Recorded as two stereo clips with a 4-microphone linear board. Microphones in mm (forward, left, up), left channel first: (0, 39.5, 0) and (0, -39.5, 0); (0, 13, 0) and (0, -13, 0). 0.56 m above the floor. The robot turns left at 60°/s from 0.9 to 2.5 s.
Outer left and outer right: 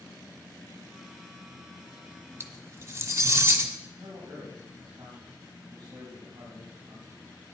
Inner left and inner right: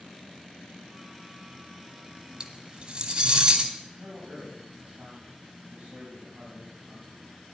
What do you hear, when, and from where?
2.4 s cutlery clinking: 35° right (ahead or behind), 1.1 m; by 3.7 s 40° right (ahead or behind), 1.1 m
3.9 s a man speaking: 60° right (ahead or behind), 3 m